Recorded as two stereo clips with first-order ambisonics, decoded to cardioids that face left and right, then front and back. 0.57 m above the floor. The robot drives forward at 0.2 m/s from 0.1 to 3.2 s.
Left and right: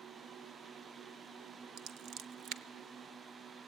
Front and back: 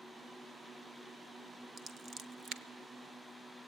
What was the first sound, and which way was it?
Scissors, 120° right.